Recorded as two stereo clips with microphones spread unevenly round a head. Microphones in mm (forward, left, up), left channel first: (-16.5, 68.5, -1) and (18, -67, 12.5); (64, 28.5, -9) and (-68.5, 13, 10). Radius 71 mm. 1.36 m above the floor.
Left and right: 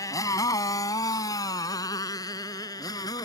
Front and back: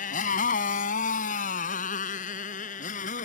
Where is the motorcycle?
35° left; by 3.2 s 40° left.